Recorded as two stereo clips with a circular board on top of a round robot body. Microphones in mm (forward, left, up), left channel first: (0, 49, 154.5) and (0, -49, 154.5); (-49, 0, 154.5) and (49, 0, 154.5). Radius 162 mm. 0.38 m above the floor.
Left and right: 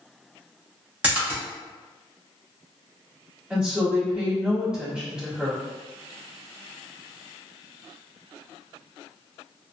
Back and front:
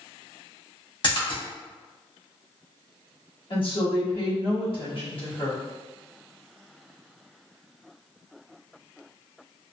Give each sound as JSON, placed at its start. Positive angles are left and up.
{"t": 1.0, "sound": "a splash", "azimuth_deg": -160, "distance_m": 1.7}
{"t": 3.5, "sound": "a woman speaking", "azimuth_deg": -170, "distance_m": 1.9}